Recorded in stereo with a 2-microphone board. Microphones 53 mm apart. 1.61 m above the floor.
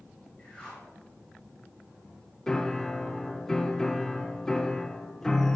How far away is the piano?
About 0.9 m.